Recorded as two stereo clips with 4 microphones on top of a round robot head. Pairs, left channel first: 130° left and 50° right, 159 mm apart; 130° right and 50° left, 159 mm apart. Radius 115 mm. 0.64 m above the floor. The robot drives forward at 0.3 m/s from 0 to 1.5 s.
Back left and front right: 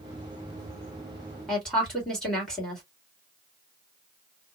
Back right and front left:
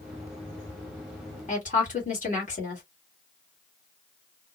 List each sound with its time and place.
1.5 s a woman speaking: 140° right, 1.7 m; by 2.8 s 145° right, 1.7 m